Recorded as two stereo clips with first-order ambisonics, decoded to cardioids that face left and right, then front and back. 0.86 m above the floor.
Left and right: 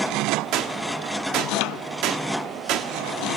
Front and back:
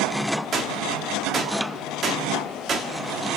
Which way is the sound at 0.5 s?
120° right.